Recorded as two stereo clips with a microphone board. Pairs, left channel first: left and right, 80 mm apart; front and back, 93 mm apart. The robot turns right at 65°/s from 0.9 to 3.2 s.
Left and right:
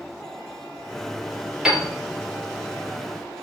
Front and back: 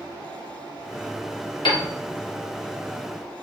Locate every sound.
1.6 s a piano: 10° right, 1.2 m; by 1.9 s 5° left, 1.2 m